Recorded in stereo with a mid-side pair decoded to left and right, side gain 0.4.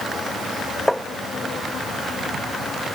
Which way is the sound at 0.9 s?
5° left.